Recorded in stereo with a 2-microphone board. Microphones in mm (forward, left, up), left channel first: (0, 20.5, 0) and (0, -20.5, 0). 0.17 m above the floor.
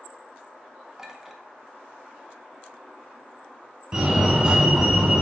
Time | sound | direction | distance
1.0 | a clink | 10° right (ahead or behind) | 1.0 m
3.9 | a fire alarm | 20° right (ahead or behind) | 2.5 m